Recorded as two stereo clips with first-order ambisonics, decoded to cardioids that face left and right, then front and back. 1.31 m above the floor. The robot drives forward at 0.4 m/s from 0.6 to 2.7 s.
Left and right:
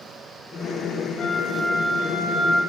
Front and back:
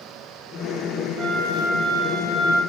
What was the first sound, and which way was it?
A flute, 155° left.